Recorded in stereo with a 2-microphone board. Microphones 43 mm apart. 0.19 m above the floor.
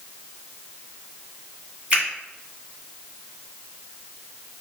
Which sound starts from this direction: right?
A finger snap, at 1.9 s.